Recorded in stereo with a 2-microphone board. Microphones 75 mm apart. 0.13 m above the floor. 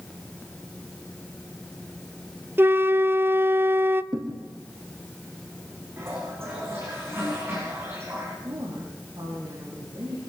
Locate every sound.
2.6 s a flute: 30° right (ahead or behind), 0.5 m
4.1 s a thud: 70° right (ahead or behind), 4.5 m
6.0 s a toilet flushing: 35° right (ahead or behind), 9 m
8.4 s a woman speaking: 70° right (ahead or behind), 8 m